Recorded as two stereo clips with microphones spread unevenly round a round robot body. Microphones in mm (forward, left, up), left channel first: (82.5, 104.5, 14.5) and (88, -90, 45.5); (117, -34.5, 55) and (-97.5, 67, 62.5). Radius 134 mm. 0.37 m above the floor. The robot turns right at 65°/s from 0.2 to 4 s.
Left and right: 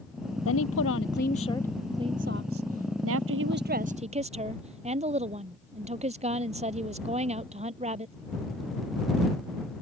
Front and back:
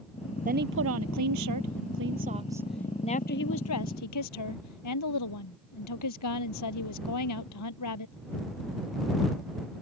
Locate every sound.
0.5 s a woman speaking: 95° left; by 8.1 s 30° right